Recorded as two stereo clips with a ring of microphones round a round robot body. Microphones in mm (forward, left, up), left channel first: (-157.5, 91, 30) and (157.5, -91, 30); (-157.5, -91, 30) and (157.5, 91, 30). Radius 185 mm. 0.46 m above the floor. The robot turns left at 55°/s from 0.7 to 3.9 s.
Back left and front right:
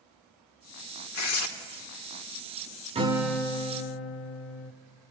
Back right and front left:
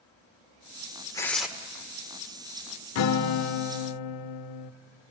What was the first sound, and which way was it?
Tearing paper, 135° left.